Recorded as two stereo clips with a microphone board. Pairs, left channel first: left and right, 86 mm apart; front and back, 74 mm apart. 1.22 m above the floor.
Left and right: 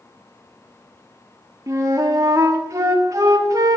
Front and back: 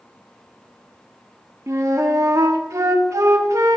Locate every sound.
1.7 s a flute: 135° right, 1.3 m